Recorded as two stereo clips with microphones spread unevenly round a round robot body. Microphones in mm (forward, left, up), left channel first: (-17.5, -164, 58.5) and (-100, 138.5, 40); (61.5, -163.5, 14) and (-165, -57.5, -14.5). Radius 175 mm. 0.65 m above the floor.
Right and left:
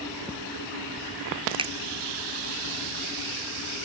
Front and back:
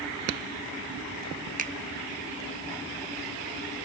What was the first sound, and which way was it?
A finger snap, 165° left.